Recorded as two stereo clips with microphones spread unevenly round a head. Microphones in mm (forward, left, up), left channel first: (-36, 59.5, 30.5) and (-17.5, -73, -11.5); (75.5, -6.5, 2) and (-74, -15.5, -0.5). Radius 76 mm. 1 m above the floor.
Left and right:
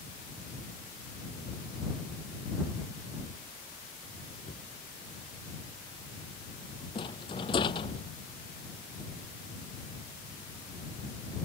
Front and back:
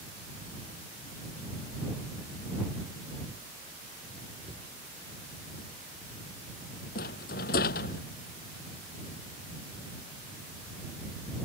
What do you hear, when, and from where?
4.4 s a cupboard door: 135° left
7.0 s a rattle: 40° left